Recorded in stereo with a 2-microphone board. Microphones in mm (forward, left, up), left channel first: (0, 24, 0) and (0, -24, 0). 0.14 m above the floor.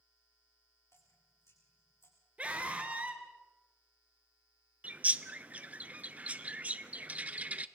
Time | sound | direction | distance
0.9 | dripping | 70° left (ahead or behind) | 6.5 m
2.4 | a scream | 25° right (ahead or behind) | 3 m
4.8 | a bird | 30° right (ahead or behind) | 0.6 m